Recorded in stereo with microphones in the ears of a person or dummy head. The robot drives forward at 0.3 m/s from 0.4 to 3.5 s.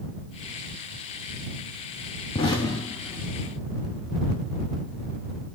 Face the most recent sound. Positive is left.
turn(degrees=15)  # may be behind; listen again after turning